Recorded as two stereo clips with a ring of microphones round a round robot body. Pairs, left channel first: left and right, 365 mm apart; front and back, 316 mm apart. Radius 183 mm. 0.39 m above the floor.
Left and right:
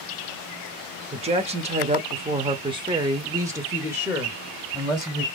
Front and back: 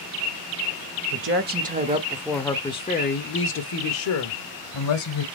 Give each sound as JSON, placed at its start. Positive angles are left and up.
{"t": 1.1, "sound": "a woman speaking", "azimuth_deg": -155, "distance_m": 1.1}